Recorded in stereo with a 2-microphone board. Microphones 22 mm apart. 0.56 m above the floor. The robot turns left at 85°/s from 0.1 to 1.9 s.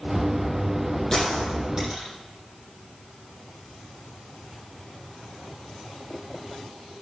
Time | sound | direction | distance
1.1 | a gunshot | 30° left (ahead or behind) | 7.5 m